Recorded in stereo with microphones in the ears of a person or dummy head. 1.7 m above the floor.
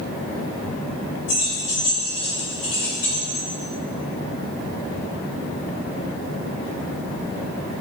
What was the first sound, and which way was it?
Keys jangling, 70° left (ahead or behind).